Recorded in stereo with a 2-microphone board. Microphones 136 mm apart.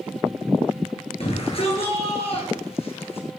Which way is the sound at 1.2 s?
45° left (ahead or behind).